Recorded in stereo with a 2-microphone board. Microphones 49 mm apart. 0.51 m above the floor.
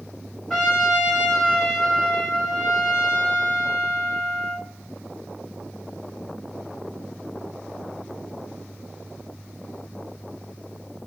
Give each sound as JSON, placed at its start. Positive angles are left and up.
{"t": 0.5, "sound": "a trumpet", "side_deg": 5, "distance_m": 0.9}